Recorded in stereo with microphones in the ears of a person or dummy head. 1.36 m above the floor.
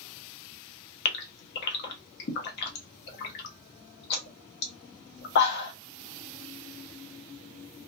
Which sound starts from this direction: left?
A gasp, at 1.1 s.